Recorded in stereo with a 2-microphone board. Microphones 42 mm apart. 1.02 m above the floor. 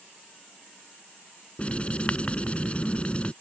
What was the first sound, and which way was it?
Writing, 25° left (ahead or behind).